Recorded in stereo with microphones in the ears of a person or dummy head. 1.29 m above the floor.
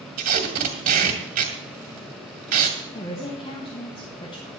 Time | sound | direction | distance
0.2 | tape being pulled | 55° right (ahead or behind) | 2 m
2.9 | a woman speaking | 30° left (ahead or behind) | 1.5 m